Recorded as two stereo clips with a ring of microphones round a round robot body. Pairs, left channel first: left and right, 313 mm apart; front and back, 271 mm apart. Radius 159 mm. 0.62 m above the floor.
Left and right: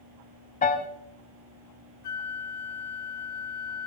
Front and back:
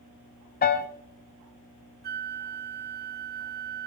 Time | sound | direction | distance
0.6 | a piano | 35° left | 0.5 m
2.0 | a flute | 125° left | 1.1 m